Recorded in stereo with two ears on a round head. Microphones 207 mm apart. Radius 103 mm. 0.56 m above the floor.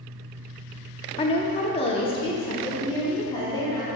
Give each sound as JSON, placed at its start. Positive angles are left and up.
{"t": 1.2, "sound": "a woman speaking", "side_deg": 25, "distance_m": 0.6}